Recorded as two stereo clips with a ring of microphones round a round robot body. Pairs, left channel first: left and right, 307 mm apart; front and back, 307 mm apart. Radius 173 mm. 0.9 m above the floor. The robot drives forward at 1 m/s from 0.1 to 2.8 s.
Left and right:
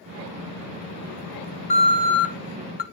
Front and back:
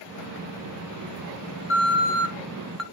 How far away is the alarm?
About 1.8 m.